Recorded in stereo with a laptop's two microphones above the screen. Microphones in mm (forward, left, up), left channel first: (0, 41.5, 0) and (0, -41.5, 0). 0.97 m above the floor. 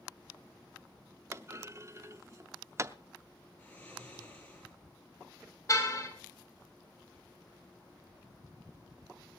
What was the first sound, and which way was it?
A clunk, 35° right (ahead or behind).